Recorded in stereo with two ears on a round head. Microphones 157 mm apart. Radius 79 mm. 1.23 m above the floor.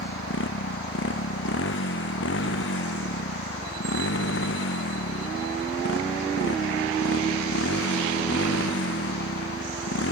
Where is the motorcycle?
75° left (ahead or behind).